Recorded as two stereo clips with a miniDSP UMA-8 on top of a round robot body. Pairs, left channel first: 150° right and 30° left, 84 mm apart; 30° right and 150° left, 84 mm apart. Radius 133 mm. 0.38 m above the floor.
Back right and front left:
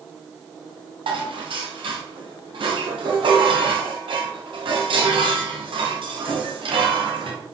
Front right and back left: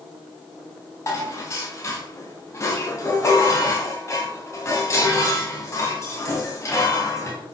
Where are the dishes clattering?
25° left, 2 m.